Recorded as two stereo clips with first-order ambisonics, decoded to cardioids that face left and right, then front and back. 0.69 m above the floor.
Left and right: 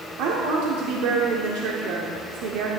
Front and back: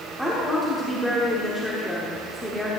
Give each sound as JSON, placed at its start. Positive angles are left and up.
{"t": 0.2, "sound": "a woman speaking", "azimuth_deg": -95, "distance_m": 1.5}